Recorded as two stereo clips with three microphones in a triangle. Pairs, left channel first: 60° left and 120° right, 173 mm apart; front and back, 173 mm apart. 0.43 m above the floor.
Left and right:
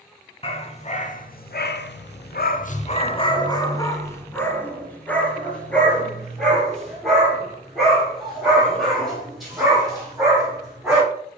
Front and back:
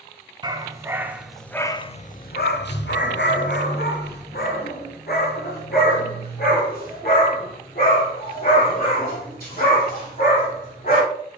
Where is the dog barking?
115° left, 1.0 m; by 11.0 s 30° right, 5 m.